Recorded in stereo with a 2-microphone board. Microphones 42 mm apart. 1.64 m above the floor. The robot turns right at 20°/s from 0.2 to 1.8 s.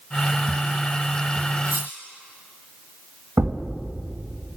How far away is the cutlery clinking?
About 2.5 m.